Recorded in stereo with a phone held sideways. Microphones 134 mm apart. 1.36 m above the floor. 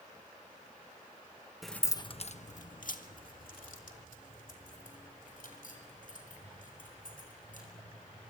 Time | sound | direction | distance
1.6 | keys jangling | centre (ahead or behind) | 1.0 m